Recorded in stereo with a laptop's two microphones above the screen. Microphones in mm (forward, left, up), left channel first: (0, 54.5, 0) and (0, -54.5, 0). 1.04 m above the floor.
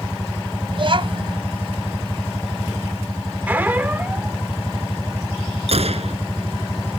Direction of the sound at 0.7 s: 50° right (ahead or behind).